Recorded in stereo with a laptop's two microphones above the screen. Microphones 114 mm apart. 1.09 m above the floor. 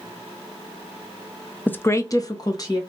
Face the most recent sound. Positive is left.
turn(degrees=35)  # may be behind; listen again after turning